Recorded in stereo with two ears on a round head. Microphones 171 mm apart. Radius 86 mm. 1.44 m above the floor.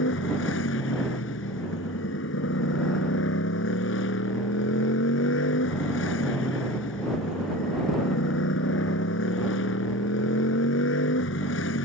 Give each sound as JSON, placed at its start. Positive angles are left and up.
{"t": 0.0, "sound": "a motorcycle", "side_deg": 70}